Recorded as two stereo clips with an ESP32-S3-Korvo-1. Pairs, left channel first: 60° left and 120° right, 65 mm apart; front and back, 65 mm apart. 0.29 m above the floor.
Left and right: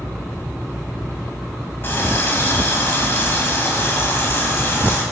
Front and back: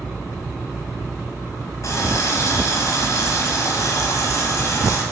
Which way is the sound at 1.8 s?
15° left.